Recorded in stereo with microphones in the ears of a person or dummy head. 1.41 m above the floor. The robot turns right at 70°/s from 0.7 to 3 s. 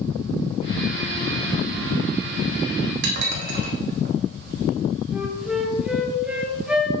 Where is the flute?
5° right (ahead or behind), 1.5 m.